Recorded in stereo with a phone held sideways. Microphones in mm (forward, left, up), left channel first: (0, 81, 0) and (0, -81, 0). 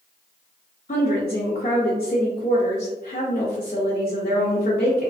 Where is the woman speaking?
60° left (ahead or behind), 0.7 m.